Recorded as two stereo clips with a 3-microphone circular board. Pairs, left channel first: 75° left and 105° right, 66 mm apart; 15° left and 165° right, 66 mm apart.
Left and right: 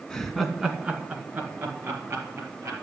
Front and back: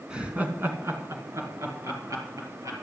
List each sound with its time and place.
0.1 s laughter: 140° left, 1.6 m; by 2.7 s 145° right, 3.5 m